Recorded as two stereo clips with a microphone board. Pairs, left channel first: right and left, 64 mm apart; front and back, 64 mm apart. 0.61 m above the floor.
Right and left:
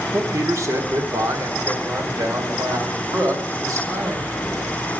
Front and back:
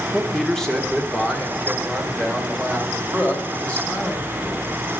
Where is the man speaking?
85° left, 0.9 m; by 4.7 s 70° left, 3 m.